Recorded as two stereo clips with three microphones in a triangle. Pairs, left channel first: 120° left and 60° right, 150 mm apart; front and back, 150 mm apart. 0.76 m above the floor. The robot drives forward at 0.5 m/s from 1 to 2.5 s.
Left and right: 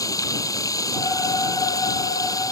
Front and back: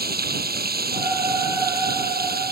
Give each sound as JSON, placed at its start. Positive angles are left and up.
{"t": 0.0, "sound": "running water", "azimuth_deg": -170}